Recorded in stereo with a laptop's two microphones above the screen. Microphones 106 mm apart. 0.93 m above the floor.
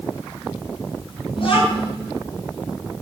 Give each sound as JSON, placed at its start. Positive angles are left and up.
{"t": 1.4, "sound": "a child speaking", "side_deg": 55, "distance_m": 7.0}